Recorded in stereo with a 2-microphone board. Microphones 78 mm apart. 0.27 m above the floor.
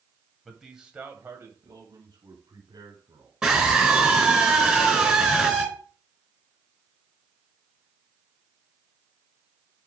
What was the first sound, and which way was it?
A man speaking, centre (ahead or behind).